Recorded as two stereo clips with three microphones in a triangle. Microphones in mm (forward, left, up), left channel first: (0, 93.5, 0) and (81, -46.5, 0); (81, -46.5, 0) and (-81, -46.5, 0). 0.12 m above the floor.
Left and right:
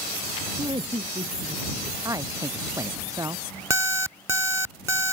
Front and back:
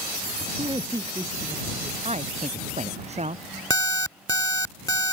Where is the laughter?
120° right; by 1.9 s 100° right.